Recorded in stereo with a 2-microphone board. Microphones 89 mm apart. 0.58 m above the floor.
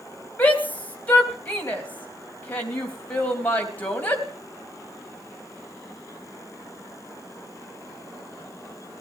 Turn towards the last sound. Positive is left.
turn(degrees=20)  # may be behind; listen again after turning